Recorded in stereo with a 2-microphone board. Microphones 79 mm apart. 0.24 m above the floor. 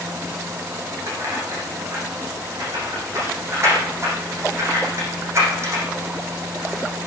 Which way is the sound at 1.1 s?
40° right (ahead or behind).